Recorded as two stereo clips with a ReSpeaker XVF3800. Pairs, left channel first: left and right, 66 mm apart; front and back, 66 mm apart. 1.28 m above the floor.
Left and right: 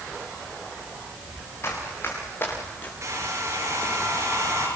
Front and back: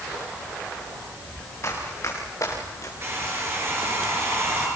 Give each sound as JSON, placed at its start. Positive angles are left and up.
{"t": 1.6, "sound": "running footsteps", "azimuth_deg": 45, "distance_m": 6.5}
{"t": 3.0, "sound": "a hair dryer", "azimuth_deg": -130, "distance_m": 7.0}